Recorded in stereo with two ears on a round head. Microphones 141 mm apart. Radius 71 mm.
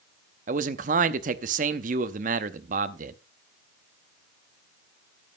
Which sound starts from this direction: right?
A man speaking, at 0.5 s.